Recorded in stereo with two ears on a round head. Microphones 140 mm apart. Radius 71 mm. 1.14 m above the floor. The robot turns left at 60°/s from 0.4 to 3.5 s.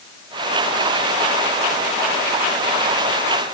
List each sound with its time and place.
Only background noise.